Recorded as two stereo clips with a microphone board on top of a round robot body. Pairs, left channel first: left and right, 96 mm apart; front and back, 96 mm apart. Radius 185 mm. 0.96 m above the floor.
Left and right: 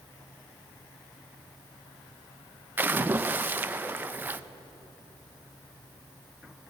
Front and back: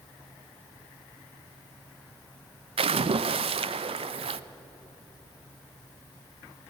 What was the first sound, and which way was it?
A splash, 160° right.